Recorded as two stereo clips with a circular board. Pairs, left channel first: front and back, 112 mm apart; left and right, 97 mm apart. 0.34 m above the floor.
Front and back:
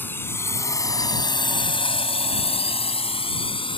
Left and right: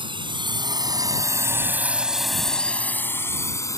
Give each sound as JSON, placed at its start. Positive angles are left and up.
{"t": 0.0, "sound": "a drone", "azimuth_deg": -70}